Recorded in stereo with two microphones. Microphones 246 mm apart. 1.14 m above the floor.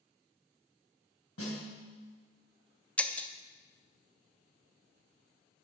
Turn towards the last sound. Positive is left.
turn(degrees=5)  # may be behind; listen again after turning